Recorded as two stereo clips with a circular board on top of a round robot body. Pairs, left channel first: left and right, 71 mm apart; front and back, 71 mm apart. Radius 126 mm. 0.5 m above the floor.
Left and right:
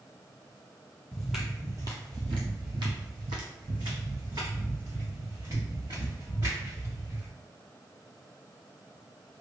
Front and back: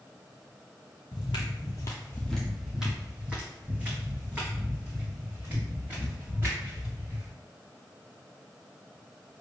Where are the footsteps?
5° left, 0.8 m; by 7.3 s 120° right, 4 m.